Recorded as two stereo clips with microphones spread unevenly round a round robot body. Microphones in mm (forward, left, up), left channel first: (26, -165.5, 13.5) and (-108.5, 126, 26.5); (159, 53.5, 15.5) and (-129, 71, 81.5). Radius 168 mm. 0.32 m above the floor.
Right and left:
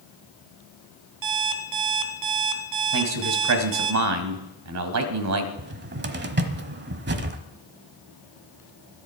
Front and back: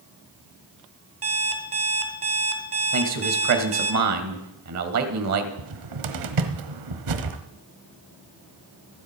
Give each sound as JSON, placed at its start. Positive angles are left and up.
{"t": 1.2, "sound": "an alarm clock", "azimuth_deg": 130, "distance_m": 2.0}
{"t": 2.9, "sound": "a man speaking", "azimuth_deg": 145, "distance_m": 2.0}
{"t": 5.6, "sound": "a cupboard door", "azimuth_deg": 170, "distance_m": 1.3}